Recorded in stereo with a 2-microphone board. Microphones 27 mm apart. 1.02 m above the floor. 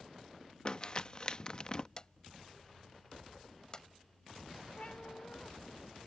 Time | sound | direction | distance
0.7 | crumpling | 35° left (ahead or behind) | ?
2.0 | a drawer | 30° left (ahead or behind) | ?
4.8 | a cat meowing | 55° left (ahead or behind) | ?